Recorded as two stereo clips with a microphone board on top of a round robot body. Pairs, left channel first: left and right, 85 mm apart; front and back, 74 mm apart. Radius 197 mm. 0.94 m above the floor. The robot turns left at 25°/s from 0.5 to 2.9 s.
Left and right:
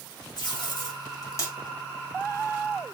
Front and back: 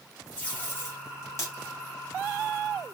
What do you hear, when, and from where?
0.4 s tape being pulled: 65° left, 1.8 m; by 1.5 s 40° left, 1.8 m